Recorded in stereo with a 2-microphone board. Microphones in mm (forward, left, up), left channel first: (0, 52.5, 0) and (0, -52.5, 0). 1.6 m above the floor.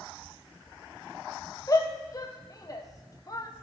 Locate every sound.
1.7 s a shout: 35° left (ahead or behind), 0.8 m